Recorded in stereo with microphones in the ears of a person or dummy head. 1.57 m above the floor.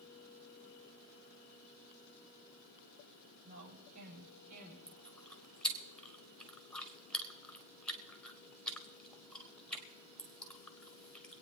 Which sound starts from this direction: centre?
Chewing, at 4.9 s.